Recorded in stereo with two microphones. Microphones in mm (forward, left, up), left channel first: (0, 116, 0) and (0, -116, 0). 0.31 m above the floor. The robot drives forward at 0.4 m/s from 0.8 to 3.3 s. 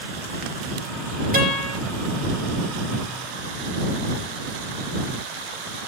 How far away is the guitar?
About 6.5 m.